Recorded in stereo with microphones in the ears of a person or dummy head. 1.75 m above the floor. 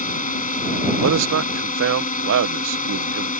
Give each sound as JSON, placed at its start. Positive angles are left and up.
{"t": 0.0, "sound": "a drone", "side_deg": 40}
{"t": 1.0, "sound": "a man speaking", "side_deg": -75}